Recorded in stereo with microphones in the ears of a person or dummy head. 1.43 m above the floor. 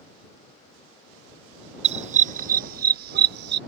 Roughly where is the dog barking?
Right.